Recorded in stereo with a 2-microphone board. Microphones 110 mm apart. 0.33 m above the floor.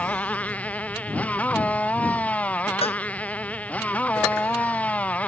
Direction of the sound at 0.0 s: 10° left (ahead or behind).